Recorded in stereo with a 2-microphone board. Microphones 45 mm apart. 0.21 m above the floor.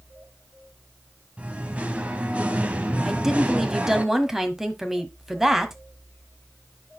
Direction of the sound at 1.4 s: 30° right (ahead or behind).